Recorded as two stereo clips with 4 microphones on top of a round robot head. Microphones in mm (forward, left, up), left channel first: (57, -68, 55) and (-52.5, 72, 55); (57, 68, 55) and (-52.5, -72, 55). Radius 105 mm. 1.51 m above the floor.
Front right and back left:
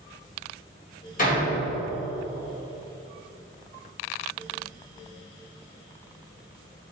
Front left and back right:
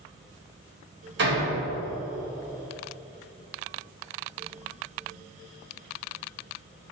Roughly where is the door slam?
Right.